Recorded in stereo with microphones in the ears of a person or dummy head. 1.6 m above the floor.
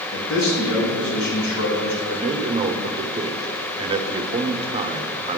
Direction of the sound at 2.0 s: 25° right (ahead or behind).